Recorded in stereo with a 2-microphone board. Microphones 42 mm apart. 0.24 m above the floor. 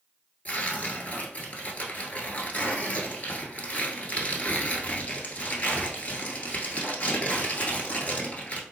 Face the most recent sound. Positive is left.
turn(degrees=40)  # may be behind; listen again after turning